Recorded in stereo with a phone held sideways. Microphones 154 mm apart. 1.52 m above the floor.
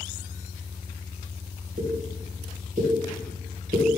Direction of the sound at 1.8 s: 55° right (ahead or behind).